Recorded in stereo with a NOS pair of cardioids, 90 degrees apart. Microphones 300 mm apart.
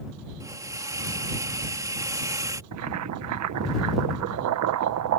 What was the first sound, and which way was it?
A hiss, 10° right.